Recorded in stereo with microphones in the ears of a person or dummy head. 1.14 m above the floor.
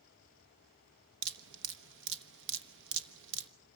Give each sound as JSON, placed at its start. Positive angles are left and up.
{"t": 1.2, "sound": "dripping", "side_deg": -65, "distance_m": 1.2}